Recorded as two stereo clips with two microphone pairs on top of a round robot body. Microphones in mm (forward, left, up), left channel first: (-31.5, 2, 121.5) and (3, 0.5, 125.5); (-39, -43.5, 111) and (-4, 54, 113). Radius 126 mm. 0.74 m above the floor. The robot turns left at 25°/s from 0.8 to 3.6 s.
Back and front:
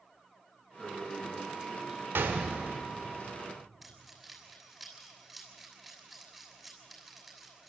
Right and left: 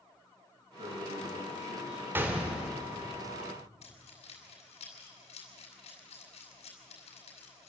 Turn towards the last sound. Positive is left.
turn(degrees=-85)